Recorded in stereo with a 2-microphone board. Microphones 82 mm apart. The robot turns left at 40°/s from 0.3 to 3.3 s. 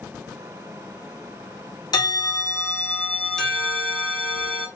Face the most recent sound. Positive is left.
turn(degrees=10)